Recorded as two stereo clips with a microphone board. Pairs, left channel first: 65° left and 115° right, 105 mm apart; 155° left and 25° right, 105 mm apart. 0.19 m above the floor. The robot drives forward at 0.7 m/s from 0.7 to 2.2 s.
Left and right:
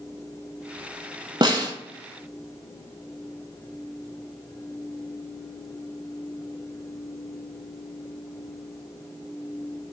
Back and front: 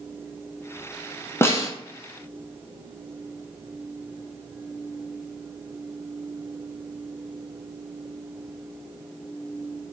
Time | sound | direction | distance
1.4 | a snare drum | 140° right | 0.8 m